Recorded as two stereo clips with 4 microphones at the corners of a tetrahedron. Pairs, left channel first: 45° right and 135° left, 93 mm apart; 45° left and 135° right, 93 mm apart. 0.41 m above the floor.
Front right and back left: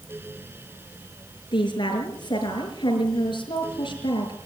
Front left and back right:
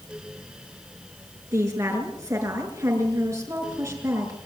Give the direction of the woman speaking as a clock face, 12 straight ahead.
3 o'clock.